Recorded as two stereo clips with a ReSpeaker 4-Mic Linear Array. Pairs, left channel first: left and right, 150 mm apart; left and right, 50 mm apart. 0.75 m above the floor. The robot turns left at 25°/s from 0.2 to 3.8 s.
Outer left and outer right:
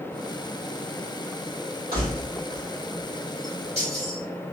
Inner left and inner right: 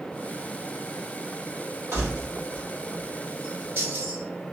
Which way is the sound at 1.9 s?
85° right.